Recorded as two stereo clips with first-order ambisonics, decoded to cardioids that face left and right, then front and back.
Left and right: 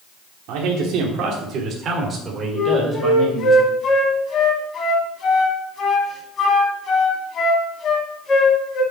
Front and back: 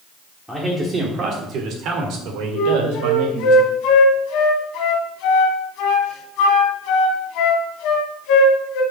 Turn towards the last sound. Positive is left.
turn(degrees=30)